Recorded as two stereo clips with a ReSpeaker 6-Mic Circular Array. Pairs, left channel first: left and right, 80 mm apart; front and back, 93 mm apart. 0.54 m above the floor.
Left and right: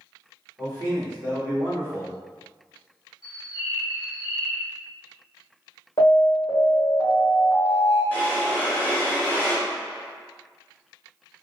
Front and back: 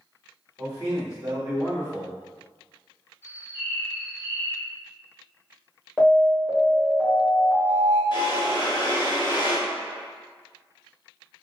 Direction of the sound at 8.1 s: 25° left.